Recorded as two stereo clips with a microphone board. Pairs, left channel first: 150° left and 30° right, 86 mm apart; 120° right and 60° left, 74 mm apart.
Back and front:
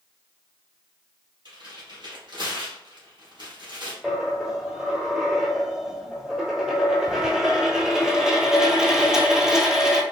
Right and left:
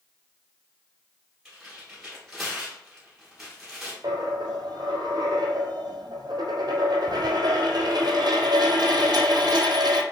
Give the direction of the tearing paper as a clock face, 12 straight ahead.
1 o'clock.